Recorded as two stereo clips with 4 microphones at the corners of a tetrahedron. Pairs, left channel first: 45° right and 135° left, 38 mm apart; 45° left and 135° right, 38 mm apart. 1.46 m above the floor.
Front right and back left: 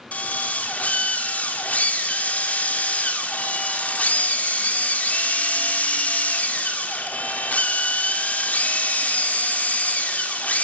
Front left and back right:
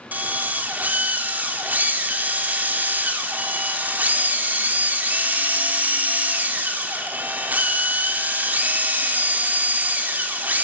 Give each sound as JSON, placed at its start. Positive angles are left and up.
{"t": 0.1, "sound": "a drill", "azimuth_deg": -95, "distance_m": 4.0}